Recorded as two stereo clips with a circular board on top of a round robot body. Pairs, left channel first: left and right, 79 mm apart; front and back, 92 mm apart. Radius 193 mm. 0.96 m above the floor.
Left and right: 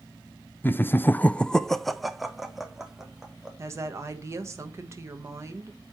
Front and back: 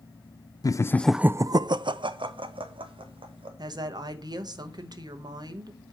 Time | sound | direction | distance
0.6 | laughter | 30° left | 0.6 m
3.6 | a woman speaking | 145° right | 1.2 m